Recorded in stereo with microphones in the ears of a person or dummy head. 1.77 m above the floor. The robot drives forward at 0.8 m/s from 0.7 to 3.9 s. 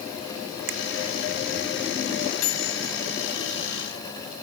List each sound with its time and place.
0.7 s a finger snap: 75° right (ahead or behind)
2.4 s a microwave: 65° left (ahead or behind); by 2.9 s 70° left (ahead or behind)